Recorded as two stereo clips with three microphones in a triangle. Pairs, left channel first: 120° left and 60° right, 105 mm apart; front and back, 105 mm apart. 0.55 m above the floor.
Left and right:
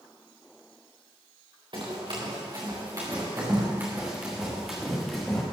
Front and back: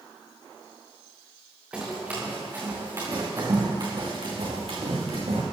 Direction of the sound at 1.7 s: 100° right.